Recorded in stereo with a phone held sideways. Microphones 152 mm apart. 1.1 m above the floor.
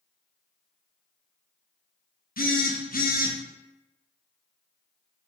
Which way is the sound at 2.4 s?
70° left (ahead or behind).